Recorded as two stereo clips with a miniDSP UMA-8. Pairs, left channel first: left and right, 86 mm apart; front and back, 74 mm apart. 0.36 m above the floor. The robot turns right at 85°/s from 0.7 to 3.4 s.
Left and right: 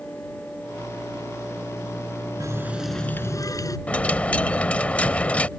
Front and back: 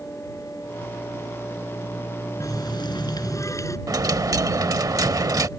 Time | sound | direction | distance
2.4 | a running tap | 45° right | ?
3.9 | a dropped coin | 160° left | ?